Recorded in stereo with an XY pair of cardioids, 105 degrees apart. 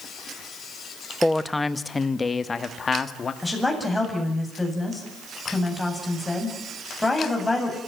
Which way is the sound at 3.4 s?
10° left.